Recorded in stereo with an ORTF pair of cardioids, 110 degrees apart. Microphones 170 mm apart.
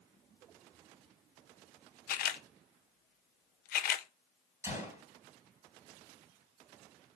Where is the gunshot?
15° right, 3.5 m.